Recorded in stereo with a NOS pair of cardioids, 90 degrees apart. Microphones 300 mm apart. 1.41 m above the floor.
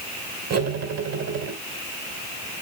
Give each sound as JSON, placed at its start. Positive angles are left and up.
{"t": 0.5, "sound": "cutlery clinking", "azimuth_deg": -60, "distance_m": 3.0}